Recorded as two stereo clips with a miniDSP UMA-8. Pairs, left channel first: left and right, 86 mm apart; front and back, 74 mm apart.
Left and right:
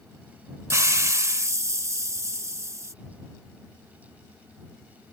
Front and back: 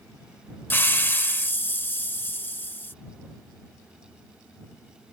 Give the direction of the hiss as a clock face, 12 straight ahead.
2 o'clock.